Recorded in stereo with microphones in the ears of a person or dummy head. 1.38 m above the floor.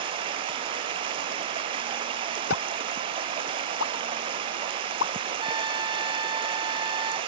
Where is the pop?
75° left (ahead or behind).